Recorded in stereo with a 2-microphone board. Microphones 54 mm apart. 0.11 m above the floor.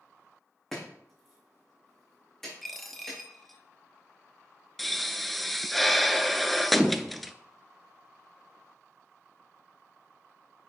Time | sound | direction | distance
0.7 | chopping | 5° left (ahead or behind) | 4.5 m
2.6 | a dropped coin | centre (ahead or behind) | 0.9 m
4.8 | a pop | centre (ahead or behind) | 0.5 m